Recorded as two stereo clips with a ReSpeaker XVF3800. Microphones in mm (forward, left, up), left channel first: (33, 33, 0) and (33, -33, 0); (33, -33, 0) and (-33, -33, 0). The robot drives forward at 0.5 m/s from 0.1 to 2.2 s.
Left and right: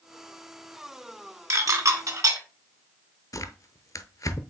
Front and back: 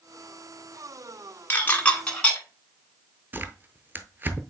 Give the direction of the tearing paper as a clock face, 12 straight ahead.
8 o'clock.